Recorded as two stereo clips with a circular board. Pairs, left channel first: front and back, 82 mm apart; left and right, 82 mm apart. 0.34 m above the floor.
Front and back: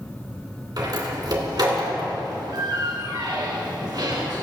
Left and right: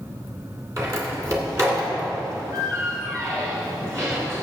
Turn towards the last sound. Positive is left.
turn(degrees=-145)